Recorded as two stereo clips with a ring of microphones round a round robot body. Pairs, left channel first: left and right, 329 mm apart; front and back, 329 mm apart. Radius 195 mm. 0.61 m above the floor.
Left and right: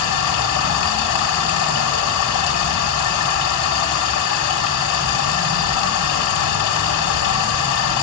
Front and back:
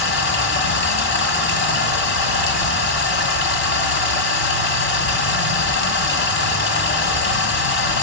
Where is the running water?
55° left, 1.8 m.